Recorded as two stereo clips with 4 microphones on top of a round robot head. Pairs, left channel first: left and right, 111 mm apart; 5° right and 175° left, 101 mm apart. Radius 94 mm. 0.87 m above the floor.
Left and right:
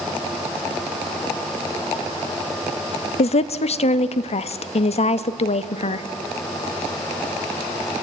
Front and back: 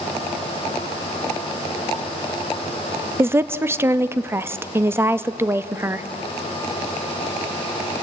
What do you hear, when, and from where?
3.2 s a woman speaking: 105° left, 0.8 m